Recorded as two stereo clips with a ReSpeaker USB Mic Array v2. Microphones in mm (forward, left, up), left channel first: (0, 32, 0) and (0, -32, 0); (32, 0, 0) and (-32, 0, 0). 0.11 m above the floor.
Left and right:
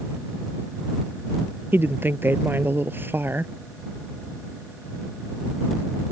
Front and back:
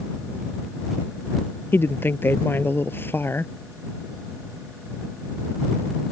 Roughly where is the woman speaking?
Ahead right.